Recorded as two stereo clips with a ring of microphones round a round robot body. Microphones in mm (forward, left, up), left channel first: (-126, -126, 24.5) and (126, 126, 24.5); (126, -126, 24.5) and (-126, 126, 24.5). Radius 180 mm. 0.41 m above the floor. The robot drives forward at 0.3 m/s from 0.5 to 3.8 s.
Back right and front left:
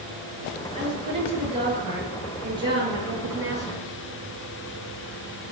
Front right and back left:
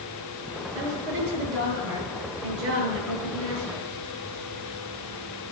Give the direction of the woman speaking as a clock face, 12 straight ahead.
8 o'clock.